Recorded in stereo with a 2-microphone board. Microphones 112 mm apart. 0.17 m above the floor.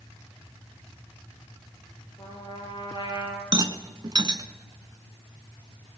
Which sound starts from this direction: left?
A trumpet, at 2.2 s.